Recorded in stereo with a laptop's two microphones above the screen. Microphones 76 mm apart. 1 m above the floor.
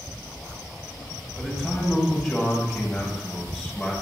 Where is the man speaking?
Centre (ahead or behind), 7 m.